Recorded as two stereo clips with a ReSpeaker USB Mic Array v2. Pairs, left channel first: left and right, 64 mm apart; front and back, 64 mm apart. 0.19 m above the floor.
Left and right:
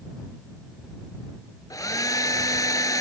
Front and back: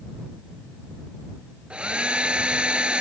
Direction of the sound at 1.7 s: 110° left.